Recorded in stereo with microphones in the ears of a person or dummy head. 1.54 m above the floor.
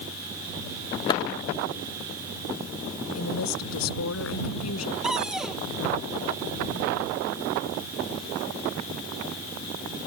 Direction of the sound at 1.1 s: 25° left (ahead or behind).